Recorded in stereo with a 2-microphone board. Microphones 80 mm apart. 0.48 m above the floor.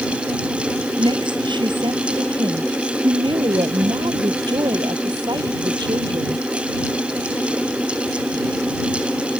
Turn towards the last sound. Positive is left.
turn(degrees=-60)  # may be behind; listen again after turning